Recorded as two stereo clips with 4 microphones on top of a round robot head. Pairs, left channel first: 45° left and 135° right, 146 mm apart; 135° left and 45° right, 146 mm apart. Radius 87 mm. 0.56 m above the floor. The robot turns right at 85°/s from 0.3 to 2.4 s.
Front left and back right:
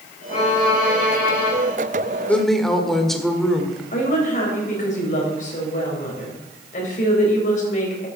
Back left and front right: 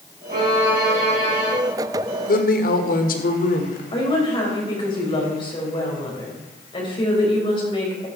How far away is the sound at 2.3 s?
About 1.6 m.